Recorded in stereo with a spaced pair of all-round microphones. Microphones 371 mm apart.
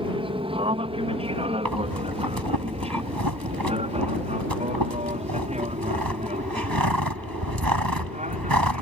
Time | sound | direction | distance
0.0 | an aircraft | 15° right (ahead or behind) | ?
1.6 | breathing | 70° right (ahead or behind) | ?